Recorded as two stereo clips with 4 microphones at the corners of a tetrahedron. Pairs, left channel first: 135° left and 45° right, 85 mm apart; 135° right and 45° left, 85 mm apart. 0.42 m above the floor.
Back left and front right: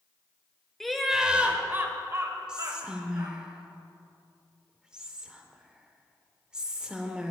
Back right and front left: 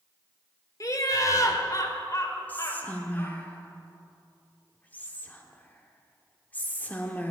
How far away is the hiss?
No hiss in this recording.